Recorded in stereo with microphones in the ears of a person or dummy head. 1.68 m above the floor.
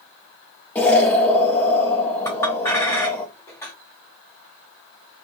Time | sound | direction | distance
0.8 | an explosion | 10° left (ahead or behind) | 0.7 m
2.2 | a clink | 15° left (ahead or behind) | 0.6 m